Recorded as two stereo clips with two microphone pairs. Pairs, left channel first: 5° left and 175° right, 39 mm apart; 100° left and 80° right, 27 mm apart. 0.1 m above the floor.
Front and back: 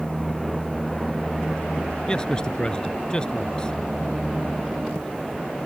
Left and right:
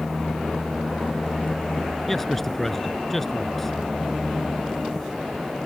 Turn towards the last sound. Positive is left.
turn(degrees=40)